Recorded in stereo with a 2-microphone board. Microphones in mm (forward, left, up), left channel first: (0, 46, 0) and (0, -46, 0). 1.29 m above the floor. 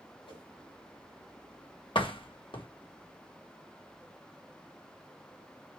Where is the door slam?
70° left (ahead or behind), 1.5 m.